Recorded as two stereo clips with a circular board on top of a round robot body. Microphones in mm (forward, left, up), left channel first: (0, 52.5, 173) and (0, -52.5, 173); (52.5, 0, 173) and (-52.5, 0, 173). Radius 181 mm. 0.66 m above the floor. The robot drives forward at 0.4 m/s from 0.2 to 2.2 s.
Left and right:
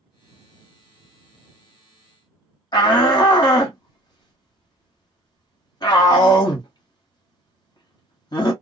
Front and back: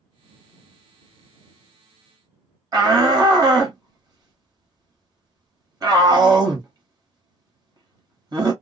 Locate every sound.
2.7 s a shout: 135° left, 1.1 m